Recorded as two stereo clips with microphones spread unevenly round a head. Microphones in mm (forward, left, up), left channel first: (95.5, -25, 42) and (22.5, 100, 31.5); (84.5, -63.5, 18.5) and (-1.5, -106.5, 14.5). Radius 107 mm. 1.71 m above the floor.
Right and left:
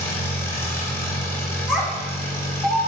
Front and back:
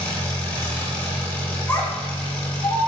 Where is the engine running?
20° right, 1.3 m.